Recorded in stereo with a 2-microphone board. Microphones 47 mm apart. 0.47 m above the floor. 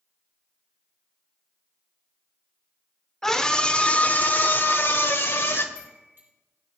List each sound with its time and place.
3.2 s a scream: 10° left (ahead or behind), 1.3 m; by 5.7 s 60° left (ahead or behind), 2 m
5.8 s a chime: 50° right (ahead or behind), 5 m